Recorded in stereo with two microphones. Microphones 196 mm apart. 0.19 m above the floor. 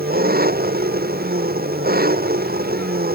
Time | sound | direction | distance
0.0 | an engine running | 50° right (ahead or behind) | ?